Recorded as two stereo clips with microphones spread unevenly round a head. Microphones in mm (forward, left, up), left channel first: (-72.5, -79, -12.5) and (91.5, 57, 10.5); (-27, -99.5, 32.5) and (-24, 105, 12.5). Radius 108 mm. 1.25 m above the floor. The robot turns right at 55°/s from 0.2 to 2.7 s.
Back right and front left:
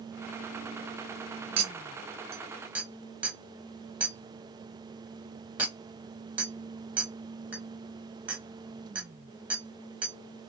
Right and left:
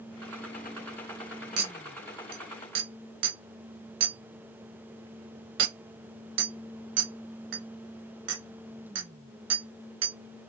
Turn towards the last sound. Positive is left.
turn(degrees=125)